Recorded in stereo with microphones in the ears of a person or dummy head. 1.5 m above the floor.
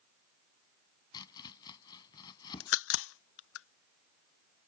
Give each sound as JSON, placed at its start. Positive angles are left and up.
{"t": 1.1, "sound": "chopping", "side_deg": 25}
{"t": 2.6, "sound": "a crack", "side_deg": 65}